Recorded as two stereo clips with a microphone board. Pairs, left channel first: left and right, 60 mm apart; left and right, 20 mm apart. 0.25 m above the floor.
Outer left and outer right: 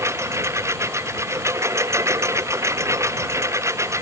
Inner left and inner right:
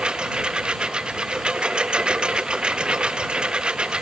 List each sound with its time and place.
0.0 s a lawn mower: 50° right (ahead or behind)